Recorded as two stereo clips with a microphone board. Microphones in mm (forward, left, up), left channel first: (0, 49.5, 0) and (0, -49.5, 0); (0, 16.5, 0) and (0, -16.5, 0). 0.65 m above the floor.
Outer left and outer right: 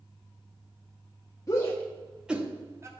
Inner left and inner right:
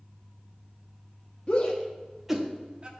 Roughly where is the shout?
Left.